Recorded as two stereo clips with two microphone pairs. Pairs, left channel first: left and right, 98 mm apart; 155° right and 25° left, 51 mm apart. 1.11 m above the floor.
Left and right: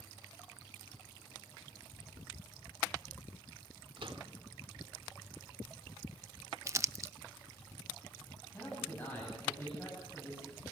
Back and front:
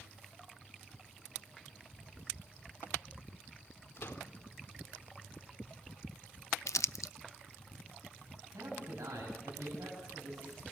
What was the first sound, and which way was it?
A microwave, 115° right.